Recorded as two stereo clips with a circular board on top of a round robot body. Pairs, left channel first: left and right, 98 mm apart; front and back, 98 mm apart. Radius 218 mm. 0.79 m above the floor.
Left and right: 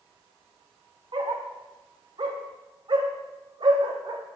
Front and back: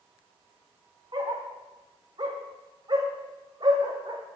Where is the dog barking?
130° right, 0.7 m.